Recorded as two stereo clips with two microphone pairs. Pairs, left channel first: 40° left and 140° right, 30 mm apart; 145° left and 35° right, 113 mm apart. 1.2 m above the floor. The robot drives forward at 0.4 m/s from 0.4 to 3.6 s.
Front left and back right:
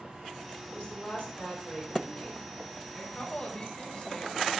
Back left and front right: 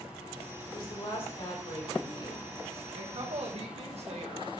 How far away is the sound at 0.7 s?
About 4.5 m.